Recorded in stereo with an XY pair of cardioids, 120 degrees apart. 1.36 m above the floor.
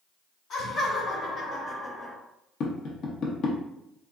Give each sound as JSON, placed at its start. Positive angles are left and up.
{"t": 0.5, "sound": "laughter", "azimuth_deg": 55, "distance_m": 1.5}
{"t": 2.6, "sound": "tapping", "azimuth_deg": 60, "distance_m": 0.6}